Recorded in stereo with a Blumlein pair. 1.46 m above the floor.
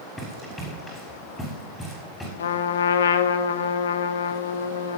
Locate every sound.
0.2 s running footsteps: 5° left, 6 m
2.4 s a trumpet: 65° left, 1.1 m